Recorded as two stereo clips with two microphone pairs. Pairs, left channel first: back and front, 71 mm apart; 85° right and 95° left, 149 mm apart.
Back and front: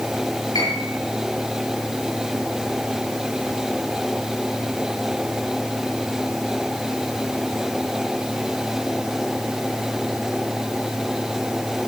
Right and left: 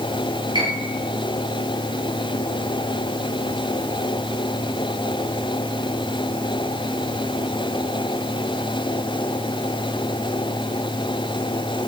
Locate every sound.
0.6 s a piano: 155° left, 8.5 m